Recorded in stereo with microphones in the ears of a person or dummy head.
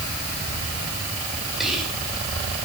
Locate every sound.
1.6 s whispering: centre (ahead or behind), 6.5 m